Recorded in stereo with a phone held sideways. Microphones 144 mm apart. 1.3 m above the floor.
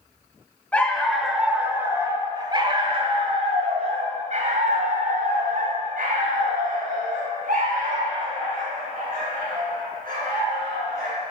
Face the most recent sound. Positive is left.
turn(degrees=-80)